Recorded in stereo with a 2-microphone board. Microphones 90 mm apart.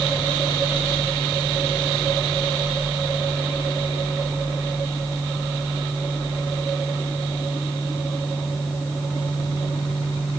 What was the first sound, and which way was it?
Only background noise.